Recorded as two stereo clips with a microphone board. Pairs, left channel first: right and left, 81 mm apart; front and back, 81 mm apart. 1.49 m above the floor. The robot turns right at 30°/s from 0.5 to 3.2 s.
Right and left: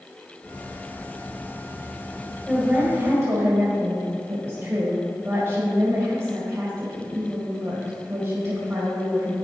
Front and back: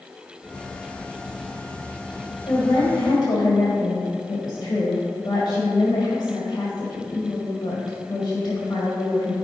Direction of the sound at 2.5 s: 15° left.